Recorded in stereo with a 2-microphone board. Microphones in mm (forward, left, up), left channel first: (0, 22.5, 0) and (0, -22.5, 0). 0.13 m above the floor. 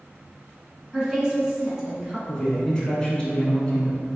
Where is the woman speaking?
15° right (ahead or behind), 1.1 m.